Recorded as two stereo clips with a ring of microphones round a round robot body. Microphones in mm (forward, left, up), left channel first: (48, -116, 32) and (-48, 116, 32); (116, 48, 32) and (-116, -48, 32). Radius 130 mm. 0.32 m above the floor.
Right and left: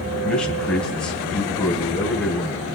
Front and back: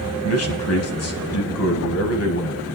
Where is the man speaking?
20° left, 1.9 m.